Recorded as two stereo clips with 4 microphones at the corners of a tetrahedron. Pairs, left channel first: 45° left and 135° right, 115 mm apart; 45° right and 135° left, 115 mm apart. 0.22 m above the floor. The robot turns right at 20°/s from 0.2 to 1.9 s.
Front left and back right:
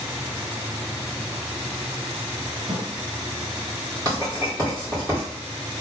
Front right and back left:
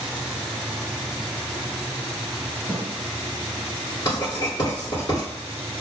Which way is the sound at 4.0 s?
90° right.